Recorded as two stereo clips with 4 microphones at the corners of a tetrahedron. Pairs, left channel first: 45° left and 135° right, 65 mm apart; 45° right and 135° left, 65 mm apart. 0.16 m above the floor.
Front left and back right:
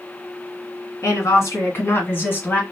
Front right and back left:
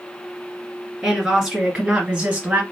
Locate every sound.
1.0 s a woman speaking: 55° left, 1.9 m; by 2.6 s 85° left, 1.5 m